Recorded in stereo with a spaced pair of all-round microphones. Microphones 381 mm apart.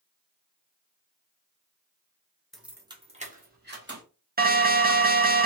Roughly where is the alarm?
Right.